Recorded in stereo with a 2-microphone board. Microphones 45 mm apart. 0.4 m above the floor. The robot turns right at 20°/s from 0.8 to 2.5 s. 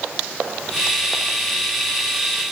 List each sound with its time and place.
Only background noise.